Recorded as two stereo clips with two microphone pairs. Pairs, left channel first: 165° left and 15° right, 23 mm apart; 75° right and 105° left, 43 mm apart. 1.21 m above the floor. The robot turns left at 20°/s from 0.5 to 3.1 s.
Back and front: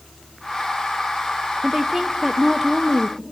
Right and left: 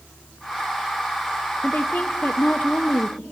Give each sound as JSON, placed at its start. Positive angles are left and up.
{"t": 1.6, "sound": "a woman speaking", "azimuth_deg": -95, "distance_m": 0.6}